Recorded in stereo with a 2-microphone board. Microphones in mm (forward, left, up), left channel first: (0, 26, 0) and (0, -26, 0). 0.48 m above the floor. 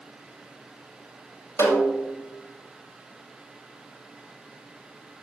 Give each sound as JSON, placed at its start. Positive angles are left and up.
{"t": 1.6, "sound": "a snare drum", "side_deg": 75, "distance_m": 5.0}